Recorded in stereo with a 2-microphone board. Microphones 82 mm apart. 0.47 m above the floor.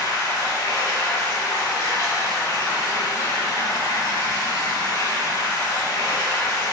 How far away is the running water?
About 1.5 m.